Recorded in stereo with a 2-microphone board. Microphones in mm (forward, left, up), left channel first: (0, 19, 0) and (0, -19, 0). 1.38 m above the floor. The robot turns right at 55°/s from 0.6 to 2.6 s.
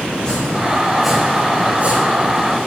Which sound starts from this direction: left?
Chopping, at 0.1 s.